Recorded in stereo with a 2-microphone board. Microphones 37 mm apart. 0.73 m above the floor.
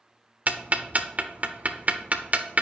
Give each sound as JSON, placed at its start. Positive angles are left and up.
{"t": 0.5, "sound": "ticking", "side_deg": -40, "distance_m": 0.7}